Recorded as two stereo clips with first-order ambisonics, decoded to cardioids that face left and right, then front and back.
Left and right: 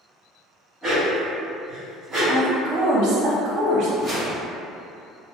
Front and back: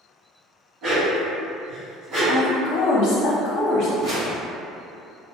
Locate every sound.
0.8 s a dog barking: 150° right, 1.8 m
2.3 s a woman speaking: 50° right, 0.9 m
4.0 s a whoosh: 160° right, 1.8 m